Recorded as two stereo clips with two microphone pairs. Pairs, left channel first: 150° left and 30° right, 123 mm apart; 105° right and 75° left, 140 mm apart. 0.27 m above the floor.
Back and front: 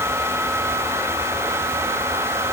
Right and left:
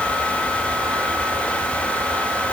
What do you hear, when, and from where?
Only background noise.